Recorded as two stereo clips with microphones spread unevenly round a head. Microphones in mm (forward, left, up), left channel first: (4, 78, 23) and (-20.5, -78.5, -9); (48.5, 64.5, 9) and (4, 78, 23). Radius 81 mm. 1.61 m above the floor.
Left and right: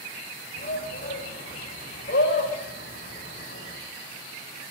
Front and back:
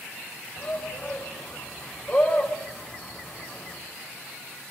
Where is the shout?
40° left, 6 m; by 3.8 s 60° left, 6.5 m.